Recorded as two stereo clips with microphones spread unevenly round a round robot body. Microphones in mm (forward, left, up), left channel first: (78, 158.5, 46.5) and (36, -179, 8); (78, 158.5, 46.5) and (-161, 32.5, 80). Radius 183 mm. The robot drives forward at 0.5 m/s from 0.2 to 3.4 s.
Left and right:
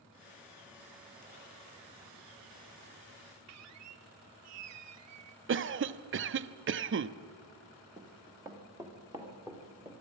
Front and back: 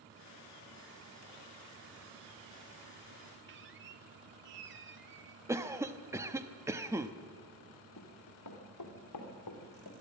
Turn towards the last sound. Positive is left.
turn(degrees=-15)